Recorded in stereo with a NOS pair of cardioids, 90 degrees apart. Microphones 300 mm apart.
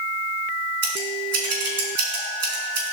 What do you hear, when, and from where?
0.8 s scissors: 55° right, 5 m